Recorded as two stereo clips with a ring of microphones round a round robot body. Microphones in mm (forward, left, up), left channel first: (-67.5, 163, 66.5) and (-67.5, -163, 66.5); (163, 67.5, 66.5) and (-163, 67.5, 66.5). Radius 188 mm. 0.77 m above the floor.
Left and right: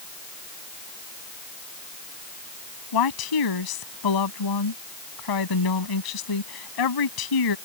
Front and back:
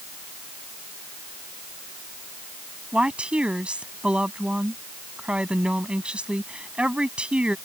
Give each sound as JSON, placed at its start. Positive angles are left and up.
{"t": 2.9, "sound": "a woman speaking", "azimuth_deg": 95}